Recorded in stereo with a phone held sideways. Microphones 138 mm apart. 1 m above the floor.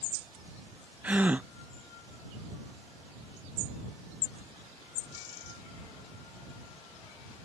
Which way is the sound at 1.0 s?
10° right (ahead or behind).